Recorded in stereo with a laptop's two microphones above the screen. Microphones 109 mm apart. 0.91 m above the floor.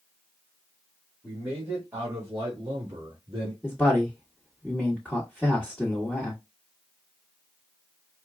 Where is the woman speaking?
5° left (ahead or behind), 1.5 m.